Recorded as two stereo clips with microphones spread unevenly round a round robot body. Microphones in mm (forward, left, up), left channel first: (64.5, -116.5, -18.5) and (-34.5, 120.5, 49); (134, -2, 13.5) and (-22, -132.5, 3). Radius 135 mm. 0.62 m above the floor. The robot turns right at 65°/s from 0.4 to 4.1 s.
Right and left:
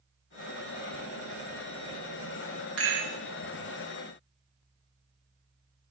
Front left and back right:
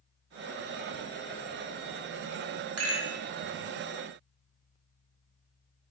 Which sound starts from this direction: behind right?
A rattle, at 2.8 s.